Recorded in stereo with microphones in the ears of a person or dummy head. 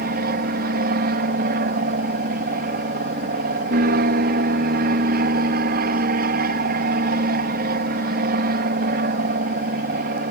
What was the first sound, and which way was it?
An aircraft, 50° right (ahead or behind).